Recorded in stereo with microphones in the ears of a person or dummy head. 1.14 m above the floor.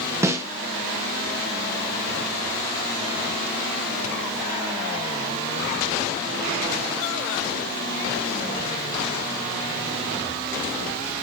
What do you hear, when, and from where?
0.2 s a snare drum: 15° right (ahead or behind), 0.6 m